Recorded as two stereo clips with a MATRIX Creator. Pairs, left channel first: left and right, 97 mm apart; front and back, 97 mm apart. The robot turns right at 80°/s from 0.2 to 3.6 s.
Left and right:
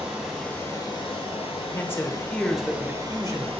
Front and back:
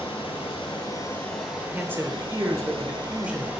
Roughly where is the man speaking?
Behind left.